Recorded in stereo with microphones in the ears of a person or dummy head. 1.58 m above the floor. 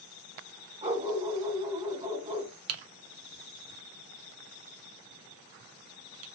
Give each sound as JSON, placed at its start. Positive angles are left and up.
{"t": 0.8, "sound": "a dog barking", "side_deg": -30, "distance_m": 2.0}
{"t": 2.7, "sound": "typing on a keyboard", "side_deg": -75, "distance_m": 0.8}